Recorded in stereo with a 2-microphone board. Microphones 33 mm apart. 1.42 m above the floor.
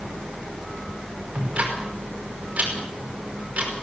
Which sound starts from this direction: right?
Ticking, at 1.4 s.